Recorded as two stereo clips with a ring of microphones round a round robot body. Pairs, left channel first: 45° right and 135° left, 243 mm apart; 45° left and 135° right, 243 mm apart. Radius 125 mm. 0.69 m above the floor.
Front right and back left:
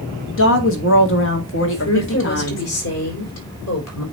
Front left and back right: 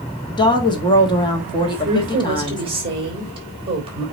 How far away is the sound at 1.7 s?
About 3.5 m.